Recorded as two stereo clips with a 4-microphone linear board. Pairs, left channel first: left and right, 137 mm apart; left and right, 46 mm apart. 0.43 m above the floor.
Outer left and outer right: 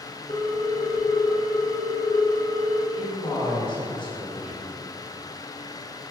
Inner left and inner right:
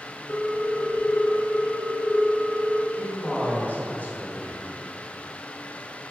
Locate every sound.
0.3 s a ringtone: 75° left (ahead or behind), 3 m
2.9 s a man speaking: 40° left (ahead or behind), 3.5 m